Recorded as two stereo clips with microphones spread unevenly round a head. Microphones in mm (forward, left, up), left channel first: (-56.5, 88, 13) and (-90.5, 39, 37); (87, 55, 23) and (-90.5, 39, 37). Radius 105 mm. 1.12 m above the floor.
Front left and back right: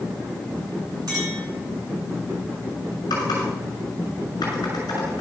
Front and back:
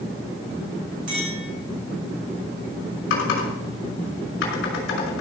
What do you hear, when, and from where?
1.1 s a clink: 120° right, 4.5 m
3.1 s typing on a keyboard: 10° left, 6 m